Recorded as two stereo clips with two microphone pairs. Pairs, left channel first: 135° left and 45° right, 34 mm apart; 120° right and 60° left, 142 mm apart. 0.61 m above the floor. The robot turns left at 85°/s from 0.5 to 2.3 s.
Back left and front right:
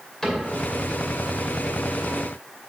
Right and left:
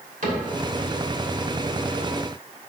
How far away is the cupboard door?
About 2.5 m.